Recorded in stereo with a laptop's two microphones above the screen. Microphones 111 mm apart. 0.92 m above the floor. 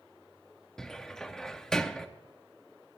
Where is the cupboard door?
5° left (ahead or behind), 0.7 m.